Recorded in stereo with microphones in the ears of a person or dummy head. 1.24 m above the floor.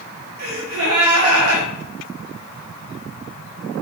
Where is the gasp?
80° right, 0.7 m.